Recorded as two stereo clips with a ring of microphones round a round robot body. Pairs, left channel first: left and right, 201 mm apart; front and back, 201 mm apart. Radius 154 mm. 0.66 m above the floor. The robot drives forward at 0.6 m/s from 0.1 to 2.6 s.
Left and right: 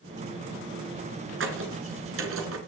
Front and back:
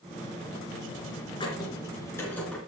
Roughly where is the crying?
No crying in this recording.